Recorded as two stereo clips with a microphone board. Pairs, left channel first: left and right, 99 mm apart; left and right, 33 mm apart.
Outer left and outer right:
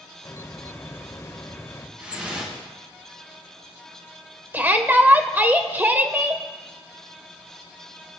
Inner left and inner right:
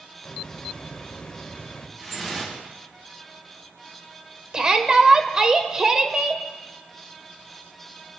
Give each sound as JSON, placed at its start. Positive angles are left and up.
{"t": 0.2, "sound": "a hiss", "side_deg": 30, "distance_m": 1.1}
{"t": 2.0, "sound": "dripping", "side_deg": -15, "distance_m": 4.5}
{"t": 4.5, "sound": "a shout", "side_deg": -20, "distance_m": 0.8}